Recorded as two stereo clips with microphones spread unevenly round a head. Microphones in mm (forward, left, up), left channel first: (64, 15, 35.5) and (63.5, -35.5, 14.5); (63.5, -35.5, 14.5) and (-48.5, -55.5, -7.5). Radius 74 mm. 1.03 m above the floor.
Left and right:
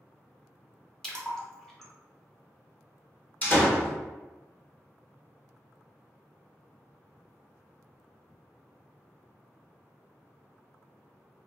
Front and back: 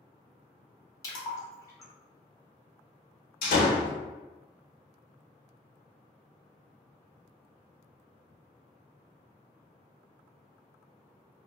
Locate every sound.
1.0 s a splash: 35° right, 0.8 m
3.4 s a door slam: 30° left, 0.9 m